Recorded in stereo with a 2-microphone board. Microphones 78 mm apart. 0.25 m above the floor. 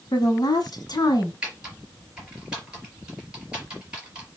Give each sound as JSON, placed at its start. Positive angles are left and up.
{"t": 0.1, "sound": "a woman speaking", "side_deg": 55, "distance_m": 1.6}
{"t": 1.4, "sound": "typing on a keyboard", "side_deg": -10, "distance_m": 4.0}